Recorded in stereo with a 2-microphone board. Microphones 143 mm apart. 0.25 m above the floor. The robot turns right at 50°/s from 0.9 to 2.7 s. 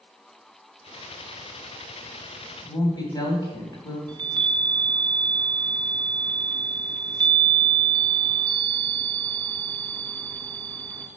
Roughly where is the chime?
Right.